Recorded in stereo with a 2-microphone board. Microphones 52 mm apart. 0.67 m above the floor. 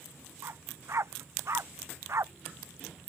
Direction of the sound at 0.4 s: 60° right (ahead or behind).